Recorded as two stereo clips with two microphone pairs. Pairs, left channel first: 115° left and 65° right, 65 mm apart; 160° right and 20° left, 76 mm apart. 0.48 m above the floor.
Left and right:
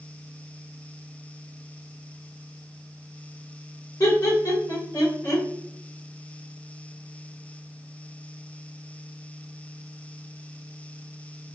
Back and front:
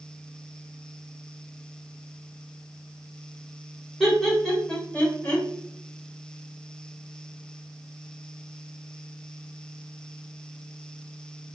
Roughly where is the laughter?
Left.